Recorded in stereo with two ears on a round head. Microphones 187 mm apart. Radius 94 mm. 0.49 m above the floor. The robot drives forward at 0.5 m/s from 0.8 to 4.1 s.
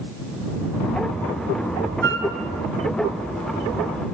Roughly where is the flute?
Right.